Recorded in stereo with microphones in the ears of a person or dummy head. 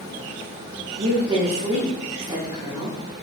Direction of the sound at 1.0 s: 30° right (ahead or behind).